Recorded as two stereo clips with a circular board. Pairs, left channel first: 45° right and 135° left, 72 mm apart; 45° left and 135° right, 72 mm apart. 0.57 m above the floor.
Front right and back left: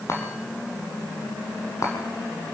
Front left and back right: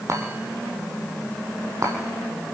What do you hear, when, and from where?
0.1 s a chime: 90° right, 5.5 m